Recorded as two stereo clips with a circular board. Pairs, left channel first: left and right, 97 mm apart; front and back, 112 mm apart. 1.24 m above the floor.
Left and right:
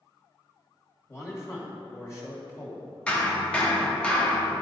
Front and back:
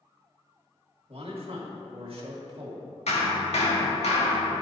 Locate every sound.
1.1 s a man speaking: 150° left, 1.9 m
3.1 s hammering: 10° left, 1.4 m